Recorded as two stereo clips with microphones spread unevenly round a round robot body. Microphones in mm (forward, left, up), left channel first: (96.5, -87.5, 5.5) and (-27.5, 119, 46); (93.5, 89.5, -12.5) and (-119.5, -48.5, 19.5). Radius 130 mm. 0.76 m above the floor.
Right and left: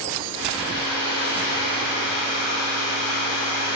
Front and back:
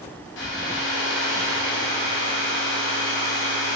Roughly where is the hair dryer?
Ahead left.